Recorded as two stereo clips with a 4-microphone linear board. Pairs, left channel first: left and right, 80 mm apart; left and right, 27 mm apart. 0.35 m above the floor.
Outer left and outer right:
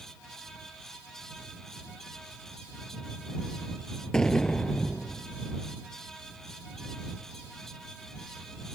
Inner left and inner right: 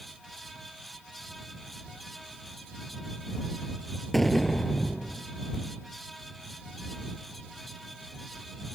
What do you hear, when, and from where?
4.1 s an explosion: 10° left (ahead or behind)